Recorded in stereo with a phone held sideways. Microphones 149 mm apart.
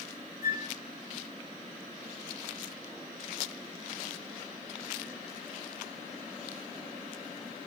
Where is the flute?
80° left, 0.8 m.